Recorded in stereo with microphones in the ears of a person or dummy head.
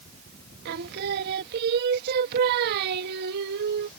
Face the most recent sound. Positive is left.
turn(degrees=-55)  # may be behind; listen again after turning